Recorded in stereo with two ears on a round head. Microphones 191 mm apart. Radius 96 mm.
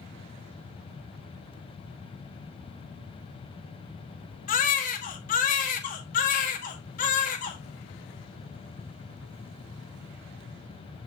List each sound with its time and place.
4.5 s a baby crying: 40° left (ahead or behind), 1.4 m